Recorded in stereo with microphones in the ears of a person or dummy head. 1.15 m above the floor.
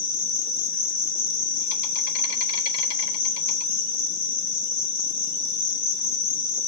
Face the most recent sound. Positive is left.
turn(degrees=50)  # may be behind; listen again after turning